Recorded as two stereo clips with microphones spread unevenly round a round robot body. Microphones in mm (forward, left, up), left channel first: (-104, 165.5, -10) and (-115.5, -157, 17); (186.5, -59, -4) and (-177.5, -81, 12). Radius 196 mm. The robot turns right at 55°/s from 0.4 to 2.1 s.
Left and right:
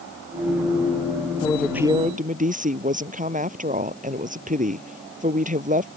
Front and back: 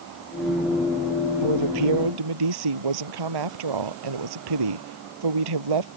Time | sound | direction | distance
1.4 | a woman speaking | 165° left | ?